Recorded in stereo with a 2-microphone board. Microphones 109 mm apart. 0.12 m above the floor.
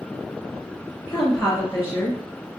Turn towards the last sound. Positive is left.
turn(degrees=5)  # may be behind; listen again after turning